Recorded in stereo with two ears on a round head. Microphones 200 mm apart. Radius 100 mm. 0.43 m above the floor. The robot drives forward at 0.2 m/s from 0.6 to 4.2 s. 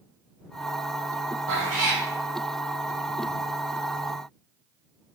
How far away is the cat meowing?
About 1.6 m.